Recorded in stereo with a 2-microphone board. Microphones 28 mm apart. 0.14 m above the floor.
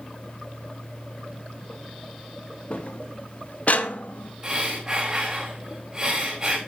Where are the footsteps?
40° left (ahead or behind), 2.0 m; by 4.3 s 60° left (ahead or behind), 1.4 m.